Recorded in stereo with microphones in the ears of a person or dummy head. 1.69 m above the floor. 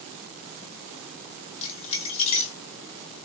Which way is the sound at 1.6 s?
35° left (ahead or behind).